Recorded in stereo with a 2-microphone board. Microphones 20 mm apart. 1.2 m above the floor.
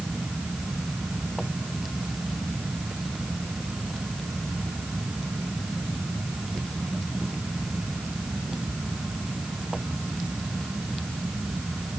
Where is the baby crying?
I don't hear a baby crying.